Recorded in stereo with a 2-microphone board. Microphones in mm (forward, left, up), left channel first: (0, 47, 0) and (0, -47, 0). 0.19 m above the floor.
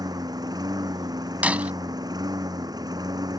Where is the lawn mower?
45° right (ahead or behind).